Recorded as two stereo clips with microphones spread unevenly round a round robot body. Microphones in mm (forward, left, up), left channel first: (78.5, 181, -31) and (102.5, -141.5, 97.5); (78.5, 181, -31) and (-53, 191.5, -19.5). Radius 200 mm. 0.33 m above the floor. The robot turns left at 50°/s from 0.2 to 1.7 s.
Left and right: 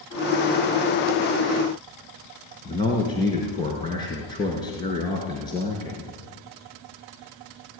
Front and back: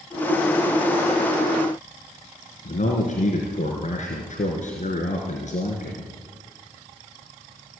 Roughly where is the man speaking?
Ahead.